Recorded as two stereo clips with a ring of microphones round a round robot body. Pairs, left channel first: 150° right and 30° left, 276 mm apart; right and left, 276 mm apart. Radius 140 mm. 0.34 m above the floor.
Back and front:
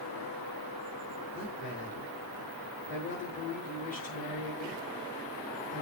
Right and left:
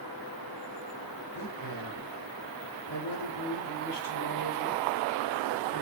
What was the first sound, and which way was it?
A man speaking, 90° right.